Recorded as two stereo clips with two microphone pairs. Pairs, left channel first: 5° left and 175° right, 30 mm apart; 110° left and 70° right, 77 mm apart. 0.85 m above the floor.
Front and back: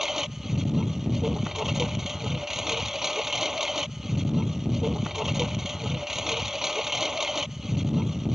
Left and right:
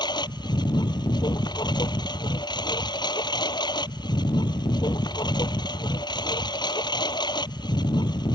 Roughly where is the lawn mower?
Left.